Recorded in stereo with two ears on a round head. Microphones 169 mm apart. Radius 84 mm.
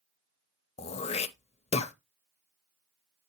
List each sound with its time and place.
0.8 s throat clearing: 35° left (ahead or behind), 0.6 m